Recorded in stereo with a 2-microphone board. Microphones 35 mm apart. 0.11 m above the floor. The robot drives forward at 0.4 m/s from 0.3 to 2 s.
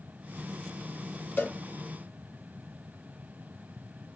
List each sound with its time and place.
1.4 s a cowbell: 60° left (ahead or behind), 3 m